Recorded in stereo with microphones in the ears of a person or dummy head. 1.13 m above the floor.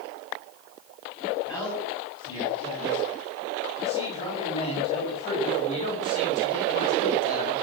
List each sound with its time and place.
1.4 s a man speaking: 15° left (ahead or behind), 7 m; by 7.5 s 40° left (ahead or behind), 4 m